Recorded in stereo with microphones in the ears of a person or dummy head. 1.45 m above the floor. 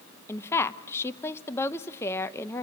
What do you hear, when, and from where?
0.3 s a woman speaking: 15° left (ahead or behind), 0.8 m